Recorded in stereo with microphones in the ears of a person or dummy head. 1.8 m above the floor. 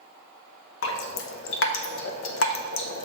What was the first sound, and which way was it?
Dripping, 80° left.